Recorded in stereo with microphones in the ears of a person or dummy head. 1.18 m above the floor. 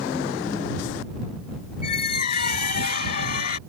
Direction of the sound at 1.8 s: 50° left (ahead or behind).